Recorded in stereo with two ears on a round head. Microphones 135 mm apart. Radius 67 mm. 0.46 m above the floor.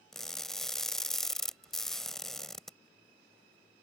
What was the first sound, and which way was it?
Crushing, 5° left (ahead or behind).